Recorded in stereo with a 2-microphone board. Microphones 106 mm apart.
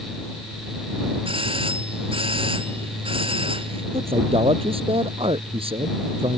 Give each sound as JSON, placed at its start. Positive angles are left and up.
{"t": 1.2, "sound": "a doorbell", "side_deg": -60}
{"t": 3.9, "sound": "a man speaking", "side_deg": -65}